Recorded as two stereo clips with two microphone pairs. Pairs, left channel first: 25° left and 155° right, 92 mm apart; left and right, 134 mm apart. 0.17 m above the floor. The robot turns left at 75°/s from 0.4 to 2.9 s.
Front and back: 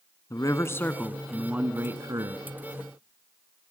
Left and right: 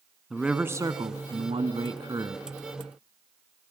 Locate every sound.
0.3 s a man speaking: straight ahead, 1.3 m; by 2.4 s 155° right, 1.3 m